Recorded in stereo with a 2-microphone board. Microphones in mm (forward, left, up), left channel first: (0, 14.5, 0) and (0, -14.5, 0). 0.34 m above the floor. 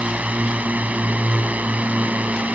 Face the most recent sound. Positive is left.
turn(degrees=-60)  # may be behind; listen again after turning